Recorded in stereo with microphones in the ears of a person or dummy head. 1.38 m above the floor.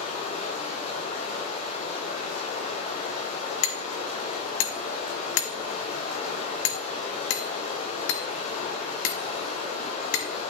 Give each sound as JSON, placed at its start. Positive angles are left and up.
{"t": 0.0, "sound": "running water", "side_deg": 40, "distance_m": 5.0}
{"t": 3.6, "sound": "hammering", "side_deg": 60, "distance_m": 1.4}